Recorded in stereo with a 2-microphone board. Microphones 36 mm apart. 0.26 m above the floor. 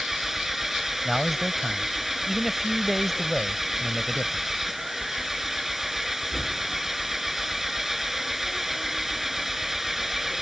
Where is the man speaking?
Centre (ahead or behind).